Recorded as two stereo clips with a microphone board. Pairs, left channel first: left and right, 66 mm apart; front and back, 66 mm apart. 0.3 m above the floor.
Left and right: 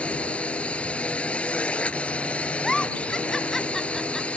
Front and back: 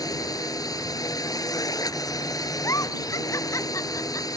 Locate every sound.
0.0 s a drone: 20° left
2.6 s a giggle: 10° left